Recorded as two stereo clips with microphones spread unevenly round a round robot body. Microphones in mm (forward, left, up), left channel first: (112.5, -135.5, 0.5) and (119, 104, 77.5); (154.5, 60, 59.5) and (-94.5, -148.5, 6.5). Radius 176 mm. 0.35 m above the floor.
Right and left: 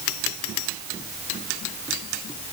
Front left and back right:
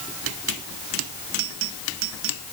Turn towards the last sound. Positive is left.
No sound to turn to.